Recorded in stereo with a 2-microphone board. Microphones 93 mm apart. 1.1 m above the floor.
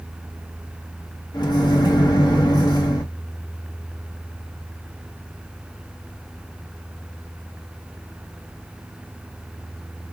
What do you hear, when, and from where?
1.3 s a microwave: 50° left (ahead or behind), 1.1 m